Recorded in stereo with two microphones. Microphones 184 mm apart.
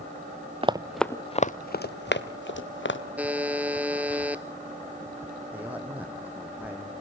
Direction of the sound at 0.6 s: 30° right (ahead or behind).